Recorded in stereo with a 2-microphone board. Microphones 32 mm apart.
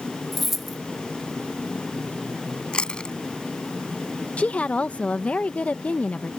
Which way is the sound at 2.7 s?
30° left (ahead or behind).